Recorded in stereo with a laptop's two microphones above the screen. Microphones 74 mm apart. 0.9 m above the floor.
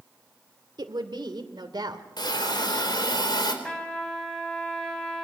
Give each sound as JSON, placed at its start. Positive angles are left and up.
{"t": 0.8, "sound": "a woman speaking", "side_deg": -85, "distance_m": 2.0}
{"t": 2.2, "sound": "a hiss", "side_deg": 75, "distance_m": 4.0}
{"t": 3.6, "sound": "a trumpet", "side_deg": 15, "distance_m": 3.5}